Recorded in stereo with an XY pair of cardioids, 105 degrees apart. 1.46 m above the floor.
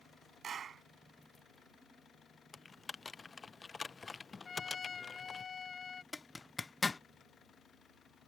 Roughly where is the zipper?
Ahead left.